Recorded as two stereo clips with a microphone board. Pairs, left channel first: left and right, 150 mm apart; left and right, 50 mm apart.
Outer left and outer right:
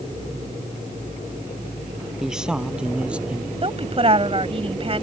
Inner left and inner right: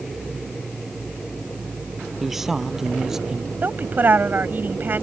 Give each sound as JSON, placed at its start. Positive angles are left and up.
{"t": 2.2, "sound": "a man speaking", "side_deg": -5}
{"t": 3.6, "sound": "a woman speaking", "side_deg": -40}